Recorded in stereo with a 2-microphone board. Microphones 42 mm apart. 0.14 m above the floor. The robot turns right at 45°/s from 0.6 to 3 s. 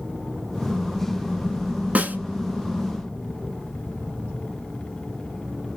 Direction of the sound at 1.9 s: 35° right (ahead or behind).